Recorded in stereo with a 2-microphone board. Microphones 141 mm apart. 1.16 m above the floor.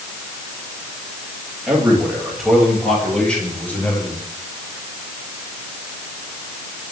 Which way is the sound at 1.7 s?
10° right (ahead or behind).